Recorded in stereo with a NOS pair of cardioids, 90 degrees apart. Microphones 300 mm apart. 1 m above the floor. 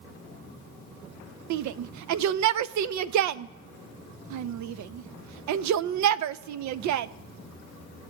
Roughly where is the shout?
Right.